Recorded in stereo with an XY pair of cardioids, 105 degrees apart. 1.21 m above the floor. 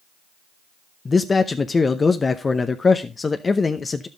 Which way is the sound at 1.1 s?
30° left.